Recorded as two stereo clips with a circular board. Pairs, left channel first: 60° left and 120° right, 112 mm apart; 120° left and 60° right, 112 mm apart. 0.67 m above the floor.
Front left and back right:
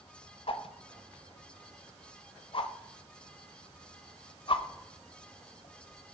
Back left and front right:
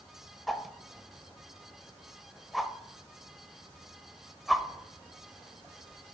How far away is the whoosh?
About 0.7 m.